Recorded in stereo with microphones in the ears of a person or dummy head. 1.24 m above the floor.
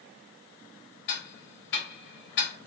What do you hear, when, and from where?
1.1 s ticking: 65° left (ahead or behind), 1.2 m